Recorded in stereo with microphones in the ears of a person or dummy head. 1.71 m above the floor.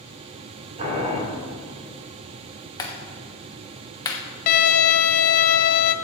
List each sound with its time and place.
0.8 s boiling: 40° right (ahead or behind), 3 m
2.8 s a clap: 20° left (ahead or behind), 1.2 m
4.5 s a violin: 50° left (ahead or behind), 0.5 m